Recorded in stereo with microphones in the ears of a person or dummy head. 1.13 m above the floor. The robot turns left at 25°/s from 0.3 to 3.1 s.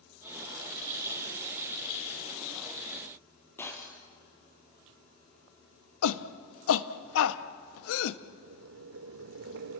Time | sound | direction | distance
3.6 | breaking glass | 10° left (ahead or behind) | 3 m
6.0 | a shout | 80° left | 1.1 m
8.3 | boiling | 65° right (ahead or behind) | 1.5 m